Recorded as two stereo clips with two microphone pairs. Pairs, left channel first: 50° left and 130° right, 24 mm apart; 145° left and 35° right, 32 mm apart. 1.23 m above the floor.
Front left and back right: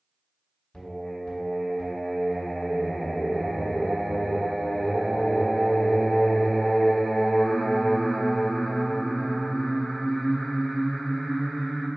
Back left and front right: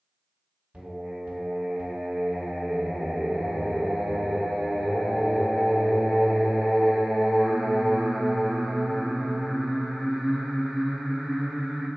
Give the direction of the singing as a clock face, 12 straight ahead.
12 o'clock.